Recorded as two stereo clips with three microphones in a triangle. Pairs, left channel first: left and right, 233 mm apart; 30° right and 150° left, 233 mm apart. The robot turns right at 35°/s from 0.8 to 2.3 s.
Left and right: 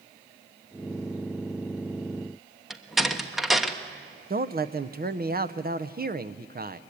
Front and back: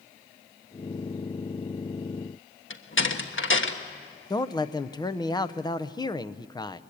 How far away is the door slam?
About 1.2 m.